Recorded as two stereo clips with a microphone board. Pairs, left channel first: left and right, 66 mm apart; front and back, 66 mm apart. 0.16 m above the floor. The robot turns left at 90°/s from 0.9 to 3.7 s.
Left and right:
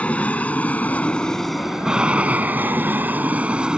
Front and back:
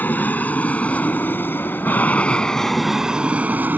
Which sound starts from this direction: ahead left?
An aircraft, at 0.0 s.